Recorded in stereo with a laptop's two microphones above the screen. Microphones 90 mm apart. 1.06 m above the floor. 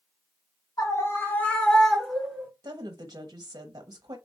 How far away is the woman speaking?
About 0.6 m.